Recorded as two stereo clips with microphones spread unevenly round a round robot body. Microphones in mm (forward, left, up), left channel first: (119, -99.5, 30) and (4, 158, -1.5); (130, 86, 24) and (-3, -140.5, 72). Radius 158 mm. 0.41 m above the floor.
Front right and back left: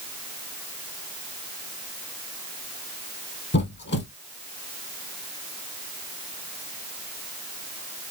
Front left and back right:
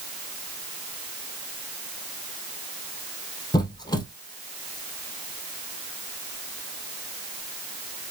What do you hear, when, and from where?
3.5 s a squeak: 15° right, 2 m